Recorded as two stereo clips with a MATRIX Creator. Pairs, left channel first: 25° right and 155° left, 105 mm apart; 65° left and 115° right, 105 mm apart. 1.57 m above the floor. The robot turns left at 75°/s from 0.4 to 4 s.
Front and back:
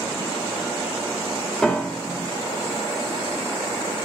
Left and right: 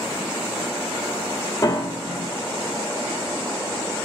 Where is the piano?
50° left, 1.4 m; by 2.3 s straight ahead, 1.4 m.